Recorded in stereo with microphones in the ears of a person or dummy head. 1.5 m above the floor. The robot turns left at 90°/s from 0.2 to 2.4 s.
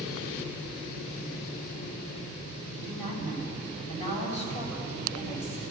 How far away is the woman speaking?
About 7 m.